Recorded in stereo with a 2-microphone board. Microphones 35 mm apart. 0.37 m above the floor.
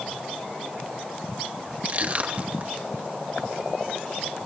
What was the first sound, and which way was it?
Crushing, 40° right (ahead or behind).